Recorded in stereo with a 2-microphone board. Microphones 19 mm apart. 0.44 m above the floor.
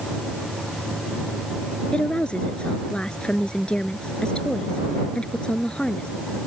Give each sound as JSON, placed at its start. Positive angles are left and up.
{"t": 1.9, "sound": "a woman speaking", "side_deg": 80}